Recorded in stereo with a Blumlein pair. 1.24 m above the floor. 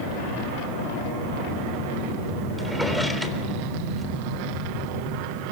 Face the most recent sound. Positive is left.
turn(degrees=5)